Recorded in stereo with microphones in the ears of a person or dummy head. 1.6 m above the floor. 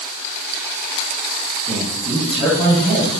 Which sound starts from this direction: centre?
A man speaking, at 1.7 s.